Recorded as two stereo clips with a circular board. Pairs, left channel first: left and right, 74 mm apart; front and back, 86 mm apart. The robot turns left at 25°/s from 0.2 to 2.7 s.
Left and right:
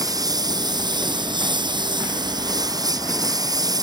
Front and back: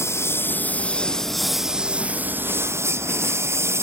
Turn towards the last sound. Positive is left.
turn(degrees=-120)